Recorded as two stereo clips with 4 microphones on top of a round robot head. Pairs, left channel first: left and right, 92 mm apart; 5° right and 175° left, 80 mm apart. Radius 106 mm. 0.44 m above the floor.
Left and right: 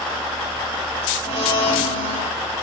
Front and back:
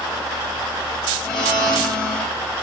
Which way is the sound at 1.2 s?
75° left.